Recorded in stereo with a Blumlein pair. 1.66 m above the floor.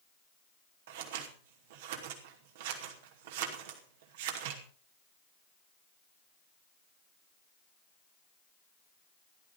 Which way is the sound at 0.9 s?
55° right.